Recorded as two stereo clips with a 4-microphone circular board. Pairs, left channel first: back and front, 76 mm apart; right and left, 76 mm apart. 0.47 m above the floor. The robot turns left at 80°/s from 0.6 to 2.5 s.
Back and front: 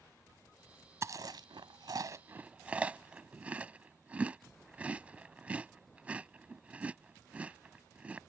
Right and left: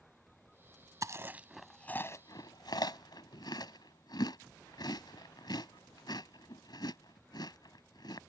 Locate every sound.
1.0 s chewing: 50° left; by 8.2 s 70° right